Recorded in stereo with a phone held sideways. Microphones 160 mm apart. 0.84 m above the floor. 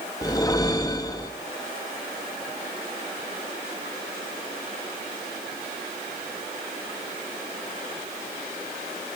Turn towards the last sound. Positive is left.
turn(degrees=25)  # may be behind; listen again after turning